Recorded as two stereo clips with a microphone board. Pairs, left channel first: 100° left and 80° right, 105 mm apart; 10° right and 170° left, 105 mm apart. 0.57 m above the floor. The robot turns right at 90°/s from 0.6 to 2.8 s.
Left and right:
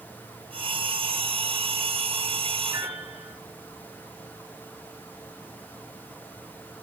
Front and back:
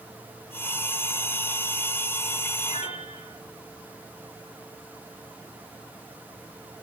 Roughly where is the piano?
Ahead right.